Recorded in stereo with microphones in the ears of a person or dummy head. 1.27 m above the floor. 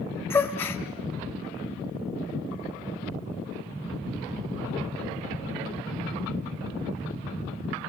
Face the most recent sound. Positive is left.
turn(degrees=10)  # may be behind; listen again after turning